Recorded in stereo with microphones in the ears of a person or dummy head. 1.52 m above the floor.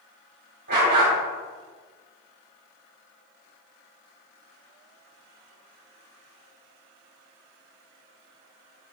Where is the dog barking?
60° right (ahead or behind), 3 m.